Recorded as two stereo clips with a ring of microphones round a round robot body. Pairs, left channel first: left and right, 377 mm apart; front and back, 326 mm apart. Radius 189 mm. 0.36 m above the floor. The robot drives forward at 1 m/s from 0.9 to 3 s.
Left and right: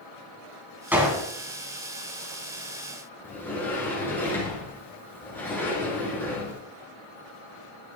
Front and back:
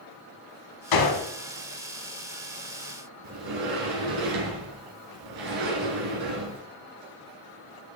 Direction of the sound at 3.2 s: 175° left.